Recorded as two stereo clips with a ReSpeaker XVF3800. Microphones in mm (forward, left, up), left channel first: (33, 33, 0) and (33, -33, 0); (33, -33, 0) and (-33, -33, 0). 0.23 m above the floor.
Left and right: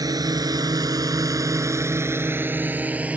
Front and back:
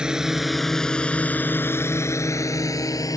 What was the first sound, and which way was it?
A drone, 105° right.